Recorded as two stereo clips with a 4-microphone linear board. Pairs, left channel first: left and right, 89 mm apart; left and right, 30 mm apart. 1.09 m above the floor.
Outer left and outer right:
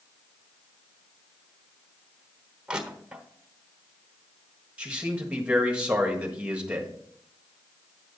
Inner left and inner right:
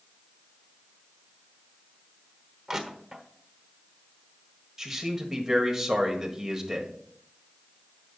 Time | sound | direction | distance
2.7 | crushing | 10° right (ahead or behind) | 1.2 m
4.8 | a man speaking | 15° right (ahead or behind) | 1.5 m